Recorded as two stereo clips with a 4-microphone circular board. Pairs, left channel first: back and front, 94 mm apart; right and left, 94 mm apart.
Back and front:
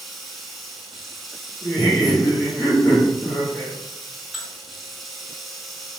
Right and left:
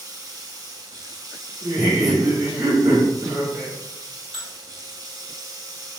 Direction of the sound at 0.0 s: 90° left.